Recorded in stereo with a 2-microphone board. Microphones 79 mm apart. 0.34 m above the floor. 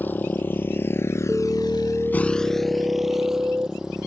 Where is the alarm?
25° right (ahead or behind).